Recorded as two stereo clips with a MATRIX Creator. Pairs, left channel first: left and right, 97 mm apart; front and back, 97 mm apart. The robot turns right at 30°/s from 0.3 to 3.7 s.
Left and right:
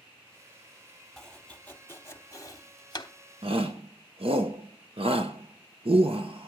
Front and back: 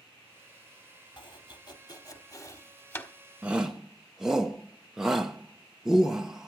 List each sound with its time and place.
1.2 s chopping: 5° left, 1.2 m; by 3.1 s 60° left, 1.2 m
3.4 s a shout: 105° right, 1.0 m; by 6.5 s 95° right, 1.0 m